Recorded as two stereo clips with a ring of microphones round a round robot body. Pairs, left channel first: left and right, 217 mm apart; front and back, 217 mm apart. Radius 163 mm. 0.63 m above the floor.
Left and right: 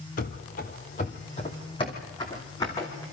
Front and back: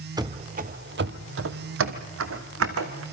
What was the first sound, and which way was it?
Running footsteps, 115° left.